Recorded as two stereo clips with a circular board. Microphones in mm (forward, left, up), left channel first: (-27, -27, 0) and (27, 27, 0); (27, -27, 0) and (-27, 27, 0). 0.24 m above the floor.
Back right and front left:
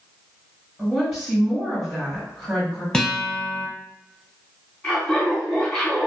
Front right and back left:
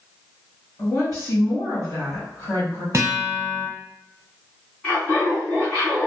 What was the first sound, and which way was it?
A woman speaking, 40° right.